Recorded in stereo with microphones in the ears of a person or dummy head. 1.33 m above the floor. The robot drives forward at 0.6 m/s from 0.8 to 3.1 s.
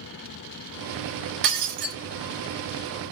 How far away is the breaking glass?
About 1.1 m.